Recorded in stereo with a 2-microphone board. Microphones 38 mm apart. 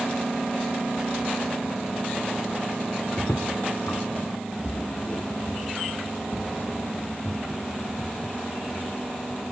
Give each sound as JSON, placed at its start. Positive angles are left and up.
{"t": 3.2, "sound": "footsteps", "side_deg": 75, "distance_m": 2.0}